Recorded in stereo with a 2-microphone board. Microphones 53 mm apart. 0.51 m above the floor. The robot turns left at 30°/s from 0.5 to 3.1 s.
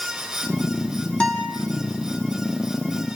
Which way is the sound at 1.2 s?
20° left (ahead or behind).